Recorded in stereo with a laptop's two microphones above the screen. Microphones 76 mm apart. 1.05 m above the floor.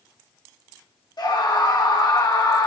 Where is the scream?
65° left (ahead or behind), 2.5 m.